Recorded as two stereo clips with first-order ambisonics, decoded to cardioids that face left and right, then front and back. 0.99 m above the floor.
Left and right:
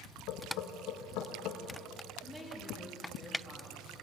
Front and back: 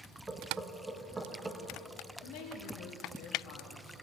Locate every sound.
0.3 s knocking: 100° left, 0.9 m
2.2 s a woman speaking: 5° right, 1.5 m